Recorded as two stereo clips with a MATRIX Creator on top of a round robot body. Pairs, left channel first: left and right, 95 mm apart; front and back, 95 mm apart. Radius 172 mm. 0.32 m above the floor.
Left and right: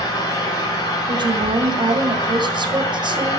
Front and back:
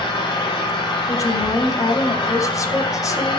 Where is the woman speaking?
55° right, 3.5 m.